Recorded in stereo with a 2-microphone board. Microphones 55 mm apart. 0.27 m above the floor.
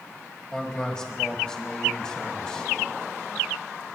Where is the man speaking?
15° left (ahead or behind), 1.4 m.